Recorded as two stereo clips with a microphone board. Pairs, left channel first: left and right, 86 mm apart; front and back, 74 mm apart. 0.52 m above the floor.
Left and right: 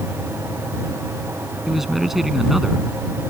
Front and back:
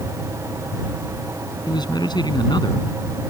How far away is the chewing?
No chewing in this recording.